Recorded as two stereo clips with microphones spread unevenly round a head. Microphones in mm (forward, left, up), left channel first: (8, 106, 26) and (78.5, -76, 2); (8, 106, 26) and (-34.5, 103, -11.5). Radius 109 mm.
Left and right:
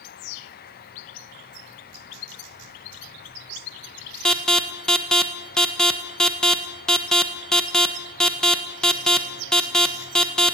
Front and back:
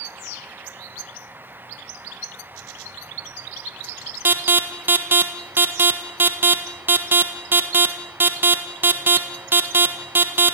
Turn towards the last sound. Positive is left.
turn(degrees=-160)